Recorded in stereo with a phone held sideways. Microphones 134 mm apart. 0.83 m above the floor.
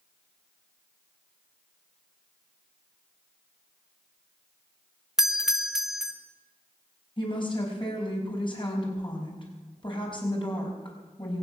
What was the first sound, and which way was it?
A doorbell, 5° right (ahead or behind).